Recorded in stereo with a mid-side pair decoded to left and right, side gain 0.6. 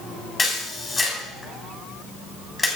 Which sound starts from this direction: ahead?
A camera shutter, at 0.4 s.